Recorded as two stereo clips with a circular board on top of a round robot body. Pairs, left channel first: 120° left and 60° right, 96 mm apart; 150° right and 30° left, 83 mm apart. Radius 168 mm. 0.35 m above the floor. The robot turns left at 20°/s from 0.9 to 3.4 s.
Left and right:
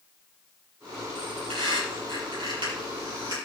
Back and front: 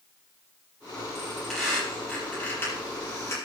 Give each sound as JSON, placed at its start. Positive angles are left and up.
{"t": 1.1, "sound": "a squeak", "azimuth_deg": -55, "distance_m": 7.0}